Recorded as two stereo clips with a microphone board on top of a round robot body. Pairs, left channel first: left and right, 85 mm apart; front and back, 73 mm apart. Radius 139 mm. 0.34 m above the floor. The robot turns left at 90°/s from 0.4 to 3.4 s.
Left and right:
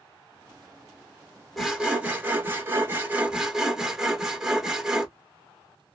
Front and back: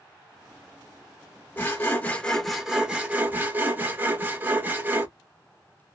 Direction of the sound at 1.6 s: Straight ahead.